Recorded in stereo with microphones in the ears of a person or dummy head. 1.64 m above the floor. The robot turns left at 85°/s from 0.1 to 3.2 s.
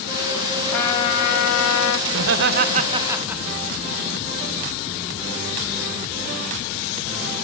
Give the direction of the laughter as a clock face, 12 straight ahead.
3 o'clock.